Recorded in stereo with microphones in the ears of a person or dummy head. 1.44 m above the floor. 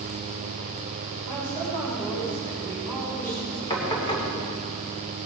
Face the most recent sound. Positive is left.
turn(degrees=20)  # may be behind; listen again after turning